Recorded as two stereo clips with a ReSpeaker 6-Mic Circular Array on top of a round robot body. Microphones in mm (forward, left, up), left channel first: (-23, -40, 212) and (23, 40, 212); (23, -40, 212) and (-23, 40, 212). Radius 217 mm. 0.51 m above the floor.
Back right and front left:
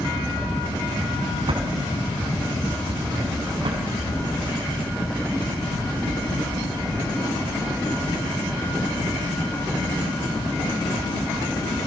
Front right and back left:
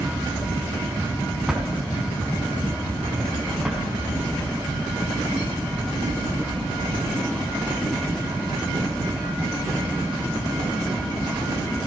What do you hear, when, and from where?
1.5 s a drawer: 35° left, 4 m